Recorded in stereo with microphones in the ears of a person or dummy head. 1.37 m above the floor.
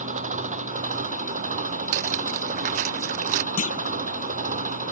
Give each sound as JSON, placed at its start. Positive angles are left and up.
{"t": 0.0, "sound": "an engine running", "side_deg": -40}
{"t": 1.9, "sound": "cutlery clinking", "side_deg": -35}
{"t": 3.6, "sound": "a clunk", "side_deg": 40}